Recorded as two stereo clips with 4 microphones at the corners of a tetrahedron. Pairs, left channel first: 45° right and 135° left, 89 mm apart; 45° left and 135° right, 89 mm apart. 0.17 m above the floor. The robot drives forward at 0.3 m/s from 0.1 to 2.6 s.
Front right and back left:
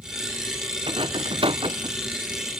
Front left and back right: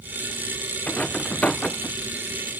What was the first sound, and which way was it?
A rattle, 120° left.